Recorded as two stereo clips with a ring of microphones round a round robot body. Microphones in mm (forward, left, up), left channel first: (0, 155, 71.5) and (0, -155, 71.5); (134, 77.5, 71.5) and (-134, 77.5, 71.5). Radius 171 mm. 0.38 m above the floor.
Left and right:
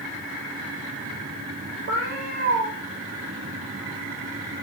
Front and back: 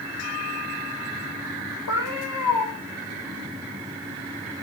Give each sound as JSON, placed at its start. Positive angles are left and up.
{"t": 1.9, "sound": "a cat meowing", "azimuth_deg": -35, "distance_m": 9.5}